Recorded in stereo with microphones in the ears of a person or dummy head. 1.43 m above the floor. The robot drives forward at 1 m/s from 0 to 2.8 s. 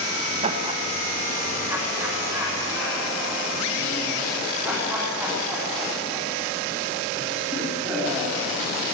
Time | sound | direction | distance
0.4 | laughter | 40° right (ahead or behind) | 1.3 m